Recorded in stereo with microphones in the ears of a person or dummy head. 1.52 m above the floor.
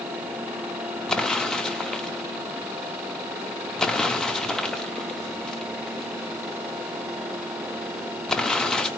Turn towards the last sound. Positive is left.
turn(degrees=10)  # may be behind; listen again after turning